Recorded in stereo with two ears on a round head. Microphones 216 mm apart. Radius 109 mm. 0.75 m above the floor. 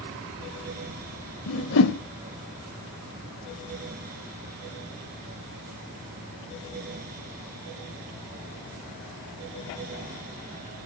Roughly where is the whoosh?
Left.